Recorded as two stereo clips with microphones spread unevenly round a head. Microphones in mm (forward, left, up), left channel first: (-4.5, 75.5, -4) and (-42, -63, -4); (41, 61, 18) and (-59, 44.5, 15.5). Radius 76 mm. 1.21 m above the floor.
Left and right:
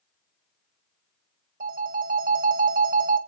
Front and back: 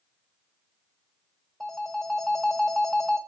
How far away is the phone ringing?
About 0.6 m.